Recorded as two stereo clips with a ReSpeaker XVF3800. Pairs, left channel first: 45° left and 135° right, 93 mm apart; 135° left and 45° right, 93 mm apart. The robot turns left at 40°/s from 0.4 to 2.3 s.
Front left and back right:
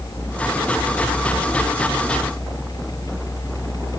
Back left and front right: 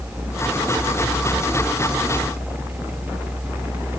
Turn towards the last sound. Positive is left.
No sound to turn to.